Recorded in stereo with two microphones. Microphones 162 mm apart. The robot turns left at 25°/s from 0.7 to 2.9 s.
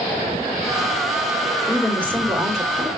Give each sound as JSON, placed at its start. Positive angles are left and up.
{"t": 1.7, "sound": "a woman speaking", "azimuth_deg": 20, "distance_m": 1.5}